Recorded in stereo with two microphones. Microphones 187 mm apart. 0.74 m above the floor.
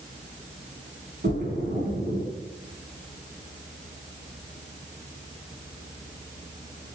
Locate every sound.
1.2 s a splash: 70° right (ahead or behind), 4 m